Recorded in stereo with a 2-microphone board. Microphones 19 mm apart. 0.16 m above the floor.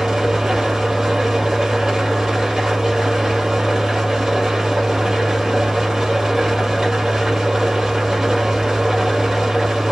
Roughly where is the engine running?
Right.